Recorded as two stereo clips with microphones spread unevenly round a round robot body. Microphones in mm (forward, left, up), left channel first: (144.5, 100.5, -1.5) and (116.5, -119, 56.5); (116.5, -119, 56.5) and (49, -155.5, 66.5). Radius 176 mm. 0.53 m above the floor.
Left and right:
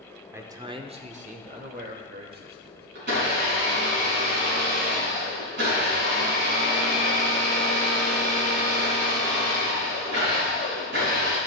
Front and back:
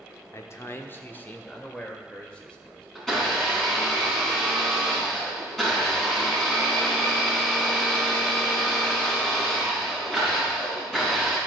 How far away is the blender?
About 4.5 m.